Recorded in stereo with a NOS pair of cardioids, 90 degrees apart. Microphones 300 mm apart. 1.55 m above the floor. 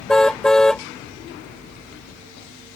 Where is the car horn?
Straight ahead.